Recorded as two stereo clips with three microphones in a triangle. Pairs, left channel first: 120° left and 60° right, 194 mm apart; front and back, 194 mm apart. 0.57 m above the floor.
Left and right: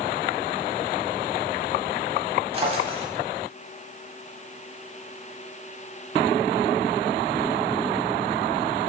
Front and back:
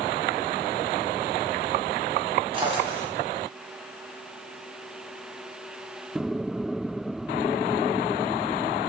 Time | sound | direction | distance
2.5 | a drawer | 120° right | 1.6 m